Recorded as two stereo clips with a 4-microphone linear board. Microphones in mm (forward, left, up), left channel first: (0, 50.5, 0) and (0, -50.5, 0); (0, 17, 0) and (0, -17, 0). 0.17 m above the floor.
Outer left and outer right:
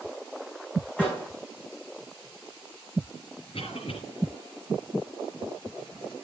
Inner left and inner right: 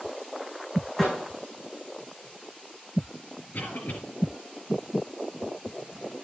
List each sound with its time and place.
1.0 s a microwave: 15° left (ahead or behind), 9 m
3.5 s a cough: 65° left (ahead or behind), 3.5 m